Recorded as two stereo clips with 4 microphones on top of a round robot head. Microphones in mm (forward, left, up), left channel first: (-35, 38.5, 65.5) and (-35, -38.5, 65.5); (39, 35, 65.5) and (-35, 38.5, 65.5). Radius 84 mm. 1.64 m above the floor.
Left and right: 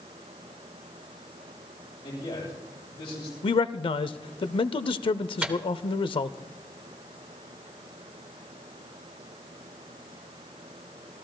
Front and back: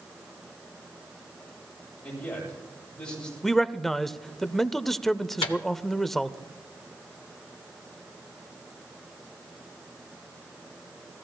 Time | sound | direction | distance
2.0 | a man speaking | 70° left | 9 m
3.4 | a man speaking | 85° left | 0.5 m
5.4 | a microwave | 15° right | 0.7 m